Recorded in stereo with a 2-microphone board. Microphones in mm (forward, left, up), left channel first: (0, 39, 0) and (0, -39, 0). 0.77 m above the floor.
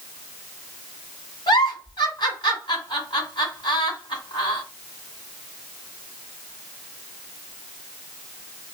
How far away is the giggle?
About 1.8 m.